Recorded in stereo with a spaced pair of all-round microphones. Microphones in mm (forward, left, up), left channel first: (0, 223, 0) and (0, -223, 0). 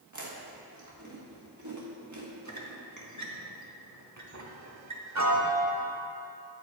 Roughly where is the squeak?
Right.